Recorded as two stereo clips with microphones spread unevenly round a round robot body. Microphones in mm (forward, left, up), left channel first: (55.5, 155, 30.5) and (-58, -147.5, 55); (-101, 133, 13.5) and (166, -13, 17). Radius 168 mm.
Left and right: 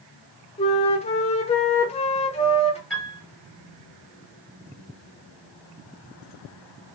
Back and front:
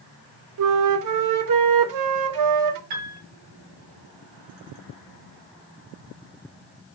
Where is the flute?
Straight ahead, 0.6 m.